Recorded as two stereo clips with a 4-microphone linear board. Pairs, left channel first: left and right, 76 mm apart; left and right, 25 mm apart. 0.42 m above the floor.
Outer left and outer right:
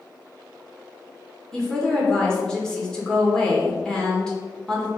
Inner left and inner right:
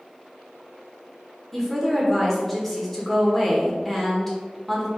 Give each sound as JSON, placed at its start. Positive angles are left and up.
{"t": 1.5, "sound": "a woman speaking", "side_deg": 10, "distance_m": 1.2}